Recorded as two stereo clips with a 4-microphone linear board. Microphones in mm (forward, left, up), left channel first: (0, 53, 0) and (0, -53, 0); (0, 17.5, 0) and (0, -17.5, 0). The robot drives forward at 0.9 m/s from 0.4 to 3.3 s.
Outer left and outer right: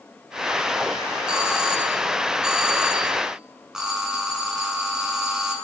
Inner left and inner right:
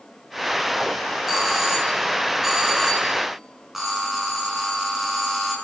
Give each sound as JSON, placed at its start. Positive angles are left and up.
{"t": 1.3, "sound": "a doorbell", "side_deg": -5, "distance_m": 4.0}